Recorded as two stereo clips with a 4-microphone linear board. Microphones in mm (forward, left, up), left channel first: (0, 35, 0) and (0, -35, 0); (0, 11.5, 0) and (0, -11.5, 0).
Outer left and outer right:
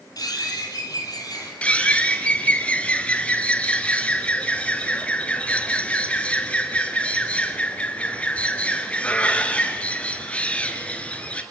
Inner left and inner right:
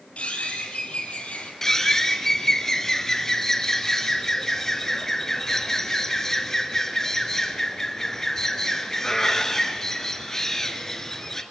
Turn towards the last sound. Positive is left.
turn(degrees=20)  # may be behind; listen again after turning